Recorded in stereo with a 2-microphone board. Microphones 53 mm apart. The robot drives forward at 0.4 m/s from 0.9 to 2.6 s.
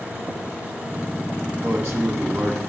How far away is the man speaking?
About 2.5 m.